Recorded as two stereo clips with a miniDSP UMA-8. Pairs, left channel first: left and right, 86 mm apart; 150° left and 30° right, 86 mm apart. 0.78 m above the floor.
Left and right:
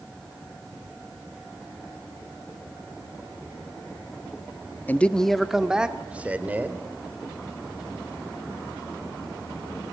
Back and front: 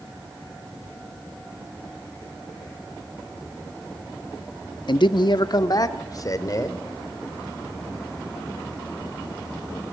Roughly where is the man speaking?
Behind left.